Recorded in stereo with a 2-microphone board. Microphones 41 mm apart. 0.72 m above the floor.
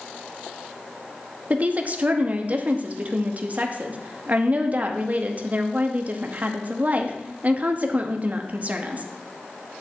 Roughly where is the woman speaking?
Right.